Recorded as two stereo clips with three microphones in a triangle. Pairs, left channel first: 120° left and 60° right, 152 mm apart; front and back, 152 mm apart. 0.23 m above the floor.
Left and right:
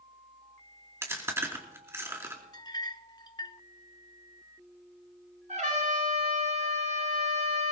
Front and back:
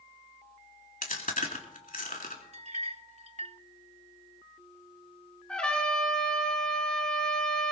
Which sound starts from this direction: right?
A trumpet, at 5.5 s.